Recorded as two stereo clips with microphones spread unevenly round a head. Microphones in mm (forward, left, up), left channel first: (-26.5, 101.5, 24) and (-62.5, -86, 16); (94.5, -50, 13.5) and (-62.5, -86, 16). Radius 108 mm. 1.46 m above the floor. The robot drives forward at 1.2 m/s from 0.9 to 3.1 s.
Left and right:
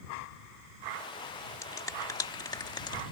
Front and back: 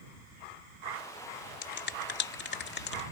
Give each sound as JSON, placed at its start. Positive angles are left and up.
{"t": 1.6, "sound": "a finger snap", "azimuth_deg": 5}